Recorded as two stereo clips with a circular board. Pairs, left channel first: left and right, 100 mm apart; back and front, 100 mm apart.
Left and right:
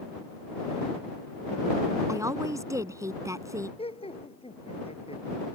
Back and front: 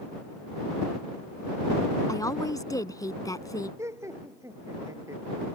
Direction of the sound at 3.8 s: 65° left.